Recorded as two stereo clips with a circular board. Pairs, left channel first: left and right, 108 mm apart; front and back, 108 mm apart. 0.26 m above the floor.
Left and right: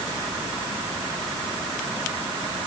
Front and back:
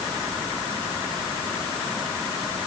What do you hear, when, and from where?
Only background noise.